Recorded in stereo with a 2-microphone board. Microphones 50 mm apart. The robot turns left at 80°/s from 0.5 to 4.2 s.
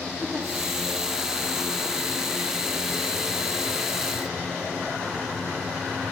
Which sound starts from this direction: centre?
A giggle, at 0.2 s.